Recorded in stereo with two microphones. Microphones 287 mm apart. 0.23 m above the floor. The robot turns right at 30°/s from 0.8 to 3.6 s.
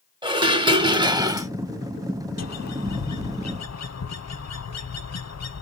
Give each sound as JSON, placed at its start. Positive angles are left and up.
{"t": 0.2, "sound": "dishes clattering", "side_deg": -15, "distance_m": 0.7}
{"t": 2.4, "sound": "a bird", "azimuth_deg": 70, "distance_m": 0.5}